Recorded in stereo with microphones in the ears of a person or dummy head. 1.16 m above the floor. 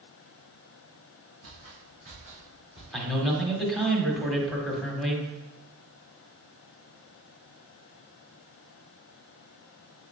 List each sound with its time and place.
1.4 s footsteps: 60° right (ahead or behind), 3.5 m; by 2.8 s 55° right (ahead or behind), 5 m
2.9 s a man speaking: centre (ahead or behind), 1.8 m